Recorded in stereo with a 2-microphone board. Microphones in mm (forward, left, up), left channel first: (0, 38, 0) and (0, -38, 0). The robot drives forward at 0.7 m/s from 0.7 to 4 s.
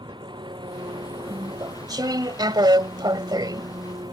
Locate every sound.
0.0 s an engine running: 75° right (ahead or behind); by 4.1 s 65° right (ahead or behind)
1.3 s chewing: 50° right (ahead or behind); by 4.1 s 55° right (ahead or behind)